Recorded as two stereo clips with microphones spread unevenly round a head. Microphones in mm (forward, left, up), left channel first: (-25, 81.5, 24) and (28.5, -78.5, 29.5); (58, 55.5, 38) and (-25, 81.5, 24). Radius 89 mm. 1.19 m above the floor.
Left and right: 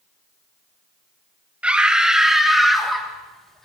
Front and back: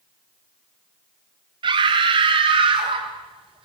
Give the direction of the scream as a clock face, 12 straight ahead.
5 o'clock.